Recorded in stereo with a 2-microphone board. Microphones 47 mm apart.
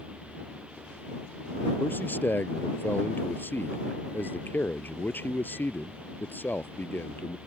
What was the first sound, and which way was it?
A man speaking, 40° left (ahead or behind).